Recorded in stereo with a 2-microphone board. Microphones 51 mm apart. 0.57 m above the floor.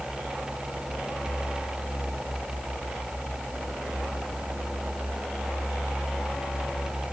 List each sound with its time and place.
Only background noise.